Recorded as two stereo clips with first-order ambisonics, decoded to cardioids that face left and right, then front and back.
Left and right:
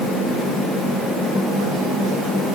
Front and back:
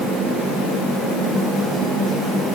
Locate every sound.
Only background noise.